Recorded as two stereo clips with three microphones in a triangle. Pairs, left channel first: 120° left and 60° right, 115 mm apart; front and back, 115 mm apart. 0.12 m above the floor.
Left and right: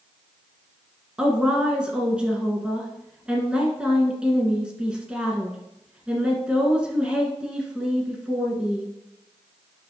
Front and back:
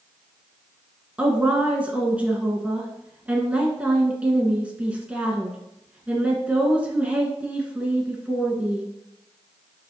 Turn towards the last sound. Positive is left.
turn(degrees=-125)